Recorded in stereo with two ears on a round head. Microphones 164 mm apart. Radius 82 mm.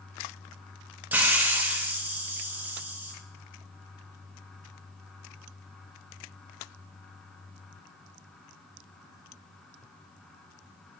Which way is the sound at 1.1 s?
10° right (ahead or behind).